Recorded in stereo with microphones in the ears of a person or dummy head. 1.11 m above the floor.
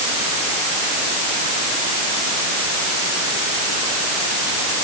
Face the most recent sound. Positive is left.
No sound to turn to.